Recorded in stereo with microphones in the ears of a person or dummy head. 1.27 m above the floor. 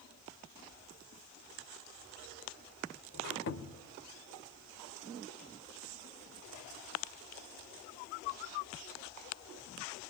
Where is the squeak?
60° left (ahead or behind), 1.5 m.